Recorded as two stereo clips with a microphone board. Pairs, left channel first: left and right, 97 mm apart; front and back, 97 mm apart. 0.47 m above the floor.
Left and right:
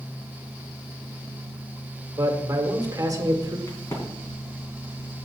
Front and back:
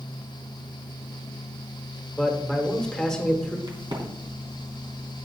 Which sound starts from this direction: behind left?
A crack, at 3.7 s.